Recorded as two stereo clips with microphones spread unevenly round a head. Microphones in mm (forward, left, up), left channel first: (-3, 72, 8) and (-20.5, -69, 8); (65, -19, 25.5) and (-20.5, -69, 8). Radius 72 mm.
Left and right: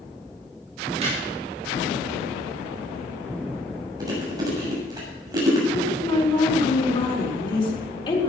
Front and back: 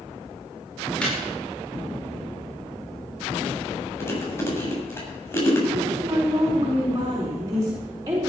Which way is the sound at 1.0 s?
45° right.